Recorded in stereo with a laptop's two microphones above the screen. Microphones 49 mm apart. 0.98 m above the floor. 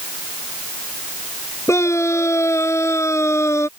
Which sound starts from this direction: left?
A scream, at 1.7 s.